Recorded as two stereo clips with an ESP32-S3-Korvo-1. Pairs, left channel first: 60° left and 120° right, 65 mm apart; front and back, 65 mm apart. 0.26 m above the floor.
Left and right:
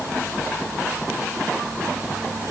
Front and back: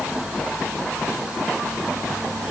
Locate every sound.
Only background noise.